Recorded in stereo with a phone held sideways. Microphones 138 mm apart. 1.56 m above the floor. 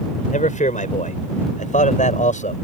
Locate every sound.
0.3 s a man speaking: 65° left (ahead or behind)